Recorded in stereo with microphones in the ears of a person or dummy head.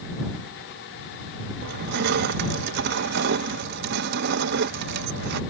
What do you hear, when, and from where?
1.6 s crushing: 55° right (ahead or behind)